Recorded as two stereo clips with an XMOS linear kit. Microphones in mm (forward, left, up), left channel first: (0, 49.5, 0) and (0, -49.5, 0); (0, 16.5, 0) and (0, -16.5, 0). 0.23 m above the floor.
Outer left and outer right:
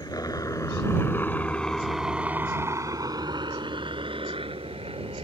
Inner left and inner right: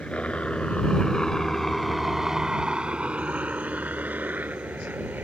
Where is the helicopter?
40° left (ahead or behind); by 5.2 s 70° right (ahead or behind).